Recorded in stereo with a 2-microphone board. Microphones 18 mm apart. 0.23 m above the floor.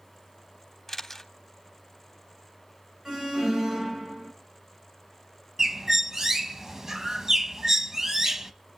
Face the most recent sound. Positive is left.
turn(degrees=-30)  # may be behind; listen again after turning